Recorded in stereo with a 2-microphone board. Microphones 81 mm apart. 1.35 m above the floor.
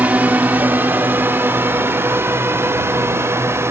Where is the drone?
20° right (ahead or behind); by 3.7 s 35° right (ahead or behind).